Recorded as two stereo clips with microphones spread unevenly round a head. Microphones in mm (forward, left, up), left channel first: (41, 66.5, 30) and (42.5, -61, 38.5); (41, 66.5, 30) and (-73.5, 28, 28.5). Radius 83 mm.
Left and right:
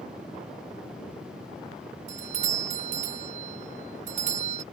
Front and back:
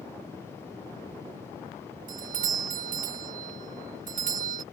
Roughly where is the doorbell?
Behind right.